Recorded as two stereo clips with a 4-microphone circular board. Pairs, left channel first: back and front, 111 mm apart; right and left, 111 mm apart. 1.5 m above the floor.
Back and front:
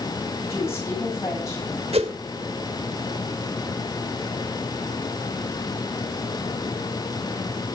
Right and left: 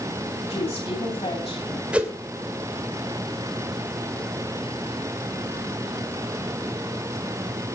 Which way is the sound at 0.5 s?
115° right.